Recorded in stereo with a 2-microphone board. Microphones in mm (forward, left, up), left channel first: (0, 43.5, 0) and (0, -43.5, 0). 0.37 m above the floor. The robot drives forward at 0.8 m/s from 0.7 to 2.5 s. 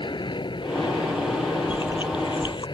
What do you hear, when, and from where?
0.0 s an aircraft: 65° left (ahead or behind); by 2.8 s 60° left (ahead or behind)
1.7 s chewing: 70° left (ahead or behind); by 2.6 s 65° left (ahead or behind)